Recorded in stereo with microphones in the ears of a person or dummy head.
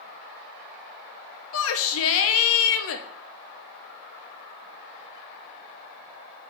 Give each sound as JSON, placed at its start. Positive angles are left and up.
{"t": 1.5, "sound": "a shout", "side_deg": 80, "distance_m": 0.7}